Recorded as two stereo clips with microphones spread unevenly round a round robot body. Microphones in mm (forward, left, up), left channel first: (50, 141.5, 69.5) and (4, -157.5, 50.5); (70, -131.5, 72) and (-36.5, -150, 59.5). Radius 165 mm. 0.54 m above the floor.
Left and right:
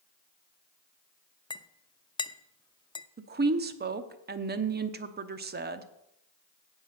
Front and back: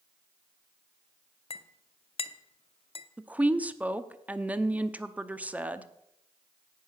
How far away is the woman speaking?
About 0.9 m.